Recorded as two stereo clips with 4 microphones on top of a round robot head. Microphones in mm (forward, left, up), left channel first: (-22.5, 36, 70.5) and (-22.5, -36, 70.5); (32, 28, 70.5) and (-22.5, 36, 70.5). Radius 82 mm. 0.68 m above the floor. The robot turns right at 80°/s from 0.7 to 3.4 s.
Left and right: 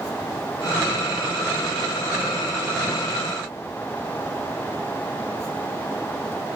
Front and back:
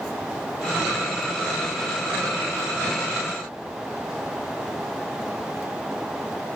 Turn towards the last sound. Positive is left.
No sound to turn to.